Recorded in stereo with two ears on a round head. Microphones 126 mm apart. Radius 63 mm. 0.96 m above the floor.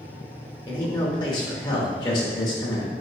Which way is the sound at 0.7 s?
30° left (ahead or behind).